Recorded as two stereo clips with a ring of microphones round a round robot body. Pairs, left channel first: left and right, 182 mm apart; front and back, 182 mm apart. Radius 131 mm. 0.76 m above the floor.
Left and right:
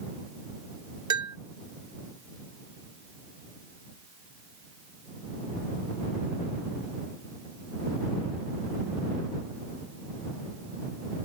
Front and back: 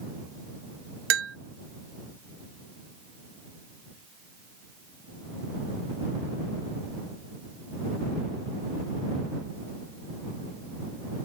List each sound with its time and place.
1.1 s a bell: 165° right